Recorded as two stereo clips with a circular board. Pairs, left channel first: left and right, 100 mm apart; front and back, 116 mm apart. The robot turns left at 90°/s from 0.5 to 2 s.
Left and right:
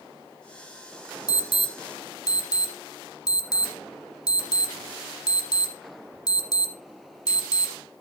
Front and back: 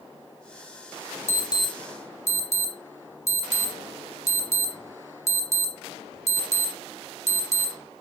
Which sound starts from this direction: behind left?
An alarm, at 1.3 s.